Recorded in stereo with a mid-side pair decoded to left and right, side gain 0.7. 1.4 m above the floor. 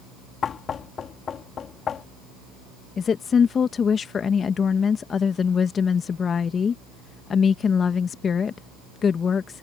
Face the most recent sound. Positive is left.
turn(degrees=30)